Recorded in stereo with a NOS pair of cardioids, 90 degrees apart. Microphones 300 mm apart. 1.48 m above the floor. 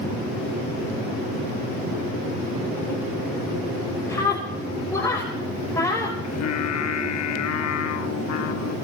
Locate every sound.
4.1 s a scream: 10° left, 6.5 m
6.2 s singing: 60° left, 3 m